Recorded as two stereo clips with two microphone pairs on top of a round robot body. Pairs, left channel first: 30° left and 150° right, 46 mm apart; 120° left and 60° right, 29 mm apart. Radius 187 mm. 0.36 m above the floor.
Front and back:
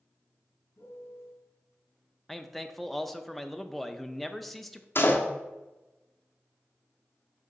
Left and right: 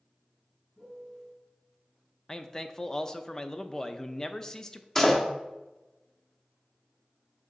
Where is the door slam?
45° left, 1.2 m.